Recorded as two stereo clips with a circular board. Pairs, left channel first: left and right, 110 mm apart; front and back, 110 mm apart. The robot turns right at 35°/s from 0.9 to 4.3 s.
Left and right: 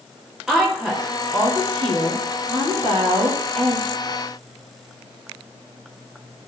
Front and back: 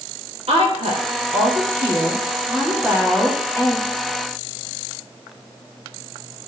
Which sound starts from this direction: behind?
A woman speaking, at 0.5 s.